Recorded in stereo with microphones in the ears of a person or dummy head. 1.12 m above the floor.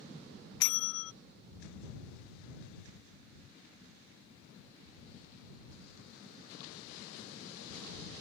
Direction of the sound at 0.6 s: 80° left.